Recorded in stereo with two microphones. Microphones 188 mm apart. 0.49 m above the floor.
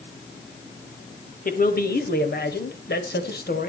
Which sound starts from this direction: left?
A man speaking, at 1.4 s.